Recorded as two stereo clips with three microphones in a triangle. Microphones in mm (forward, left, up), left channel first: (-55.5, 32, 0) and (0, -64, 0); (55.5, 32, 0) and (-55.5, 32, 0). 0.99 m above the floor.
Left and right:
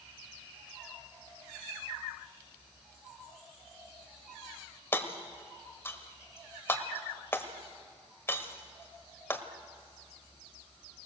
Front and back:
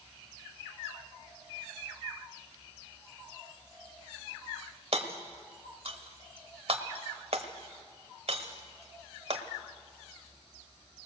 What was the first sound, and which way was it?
Hammering, 175° right.